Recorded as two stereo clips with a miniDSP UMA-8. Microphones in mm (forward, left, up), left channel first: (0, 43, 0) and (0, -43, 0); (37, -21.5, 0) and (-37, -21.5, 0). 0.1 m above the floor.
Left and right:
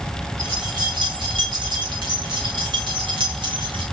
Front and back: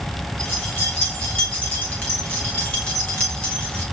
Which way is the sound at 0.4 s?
70° right.